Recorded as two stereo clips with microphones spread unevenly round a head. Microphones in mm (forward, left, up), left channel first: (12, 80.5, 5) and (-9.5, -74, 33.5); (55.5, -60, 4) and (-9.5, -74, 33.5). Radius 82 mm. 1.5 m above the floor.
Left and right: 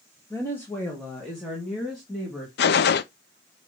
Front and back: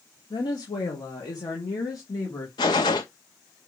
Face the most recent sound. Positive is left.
turn(degrees=60)